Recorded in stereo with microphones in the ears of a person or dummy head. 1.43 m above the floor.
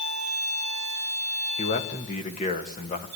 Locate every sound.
1.6 s a man speaking: 35° left (ahead or behind), 2.5 m